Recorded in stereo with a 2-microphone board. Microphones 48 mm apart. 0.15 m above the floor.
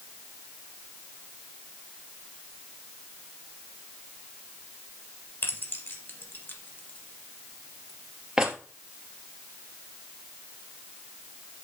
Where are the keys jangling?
55° left (ahead or behind), 2.5 m; by 8.6 s 15° right (ahead or behind), 2.5 m.